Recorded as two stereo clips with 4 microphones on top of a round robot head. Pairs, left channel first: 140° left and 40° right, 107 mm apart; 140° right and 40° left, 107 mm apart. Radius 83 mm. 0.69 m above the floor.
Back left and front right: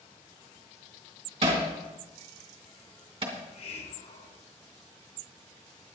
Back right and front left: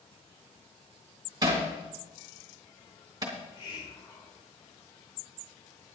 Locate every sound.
1.4 s hammering: 15° right, 3 m
3.3 s a hiss: 170° left, 1.8 m